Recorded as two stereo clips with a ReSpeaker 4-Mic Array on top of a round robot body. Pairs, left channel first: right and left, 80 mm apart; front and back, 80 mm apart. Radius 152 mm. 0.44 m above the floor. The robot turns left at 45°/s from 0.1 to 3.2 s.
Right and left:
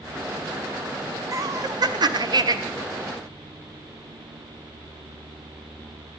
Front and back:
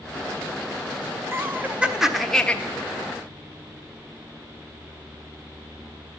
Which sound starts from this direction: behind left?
Laughter, at 1.3 s.